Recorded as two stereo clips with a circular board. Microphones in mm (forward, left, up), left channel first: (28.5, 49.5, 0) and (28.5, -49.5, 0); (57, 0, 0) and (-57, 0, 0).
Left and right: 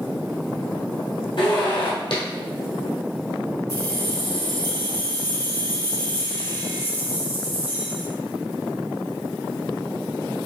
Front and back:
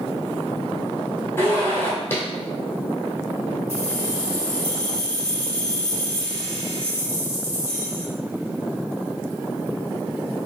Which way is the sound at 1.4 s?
65° left.